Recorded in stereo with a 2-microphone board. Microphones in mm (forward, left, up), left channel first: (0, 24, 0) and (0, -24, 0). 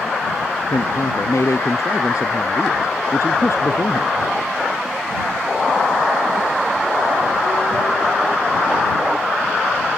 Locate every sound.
0.7 s a man speaking: 80° left